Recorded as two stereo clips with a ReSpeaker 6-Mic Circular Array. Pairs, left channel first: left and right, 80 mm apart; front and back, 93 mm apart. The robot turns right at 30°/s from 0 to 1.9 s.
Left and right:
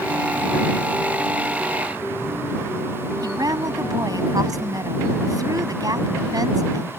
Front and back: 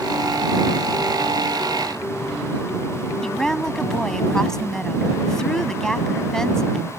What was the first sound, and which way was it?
A woman speaking, 85° right.